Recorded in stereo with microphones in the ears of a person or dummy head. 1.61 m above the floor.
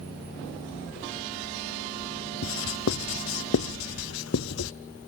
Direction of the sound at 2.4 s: 70° left (ahead or behind).